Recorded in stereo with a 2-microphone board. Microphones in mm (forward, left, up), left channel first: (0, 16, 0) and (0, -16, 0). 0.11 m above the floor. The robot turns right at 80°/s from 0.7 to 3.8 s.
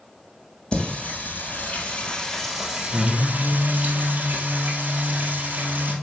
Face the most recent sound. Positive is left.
turn(degrees=-85)